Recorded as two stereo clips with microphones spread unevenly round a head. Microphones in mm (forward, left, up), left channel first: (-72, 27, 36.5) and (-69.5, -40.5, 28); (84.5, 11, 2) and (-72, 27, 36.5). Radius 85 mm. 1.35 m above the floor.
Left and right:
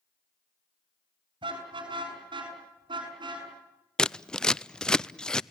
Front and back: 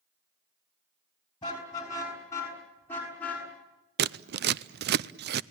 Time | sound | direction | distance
1.4 | a car horn | 75° right | 6 m
4.0 | scissors | 175° left | 0.6 m